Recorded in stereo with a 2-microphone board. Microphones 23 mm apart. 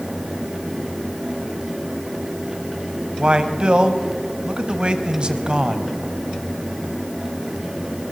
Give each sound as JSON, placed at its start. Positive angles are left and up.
{"t": 3.2, "sound": "a man speaking", "side_deg": -40, "distance_m": 2.0}